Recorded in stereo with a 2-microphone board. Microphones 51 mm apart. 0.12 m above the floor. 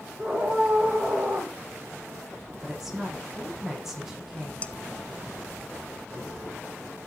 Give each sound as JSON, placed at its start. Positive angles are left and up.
{"t": 0.2, "sound": "a scream", "side_deg": -10, "distance_m": 5.5}
{"t": 2.6, "sound": "a woman speaking", "side_deg": -5, "distance_m": 5.5}
{"t": 4.6, "sound": "dishes clattering", "side_deg": 25, "distance_m": 0.8}